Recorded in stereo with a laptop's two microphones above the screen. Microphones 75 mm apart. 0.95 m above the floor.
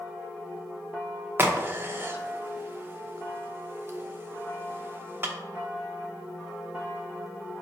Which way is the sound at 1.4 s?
30° right (ahead or behind).